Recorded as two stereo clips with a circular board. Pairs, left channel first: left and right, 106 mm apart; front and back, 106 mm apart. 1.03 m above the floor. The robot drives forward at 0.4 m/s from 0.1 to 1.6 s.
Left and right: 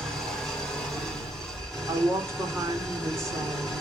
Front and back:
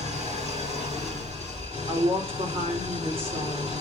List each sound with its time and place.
0.0 s an engine running: straight behind, 4.5 m
1.9 s a woman speaking: 150° right, 3.5 m